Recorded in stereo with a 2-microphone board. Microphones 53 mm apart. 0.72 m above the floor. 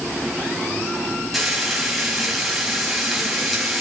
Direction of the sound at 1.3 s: Centre (ahead or behind).